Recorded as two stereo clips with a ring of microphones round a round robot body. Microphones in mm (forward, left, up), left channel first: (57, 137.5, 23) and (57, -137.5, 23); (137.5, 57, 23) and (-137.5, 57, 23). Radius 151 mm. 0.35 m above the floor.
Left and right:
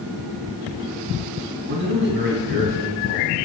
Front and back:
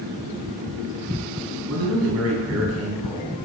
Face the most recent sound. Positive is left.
turn(degrees=-145)